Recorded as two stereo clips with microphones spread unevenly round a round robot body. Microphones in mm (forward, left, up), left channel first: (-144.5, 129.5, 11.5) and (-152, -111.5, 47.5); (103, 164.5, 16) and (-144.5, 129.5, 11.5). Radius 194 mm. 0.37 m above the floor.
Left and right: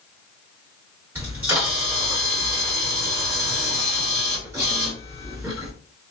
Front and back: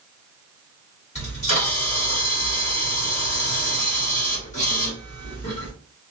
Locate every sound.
1.1 s a camera shutter: 5° right, 1.6 m